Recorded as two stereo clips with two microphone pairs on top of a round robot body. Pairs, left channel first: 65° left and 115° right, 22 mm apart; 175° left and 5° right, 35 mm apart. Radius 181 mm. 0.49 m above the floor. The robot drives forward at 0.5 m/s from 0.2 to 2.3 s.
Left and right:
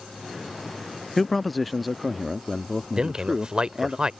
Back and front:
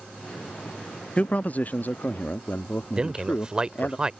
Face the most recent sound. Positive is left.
turn(degrees=-70)